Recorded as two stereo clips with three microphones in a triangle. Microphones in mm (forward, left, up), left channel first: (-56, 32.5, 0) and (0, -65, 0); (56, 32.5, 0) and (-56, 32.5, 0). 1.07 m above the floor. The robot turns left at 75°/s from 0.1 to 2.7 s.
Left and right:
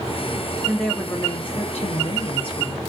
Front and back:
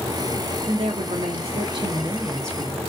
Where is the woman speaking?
140° right, 1.1 m; by 2.9 s 65° left, 1.1 m.